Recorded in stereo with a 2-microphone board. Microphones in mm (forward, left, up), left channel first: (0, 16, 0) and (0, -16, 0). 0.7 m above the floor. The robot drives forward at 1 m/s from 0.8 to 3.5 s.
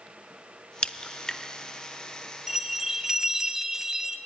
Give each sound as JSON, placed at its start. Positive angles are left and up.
{"t": 0.8, "sound": "a crack", "side_deg": 30, "distance_m": 0.6}
{"t": 2.5, "sound": "a bell", "side_deg": -15, "distance_m": 1.2}